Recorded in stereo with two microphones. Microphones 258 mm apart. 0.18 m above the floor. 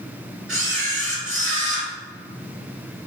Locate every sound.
0.5 s a camera shutter: 50° right (ahead or behind), 1.4 m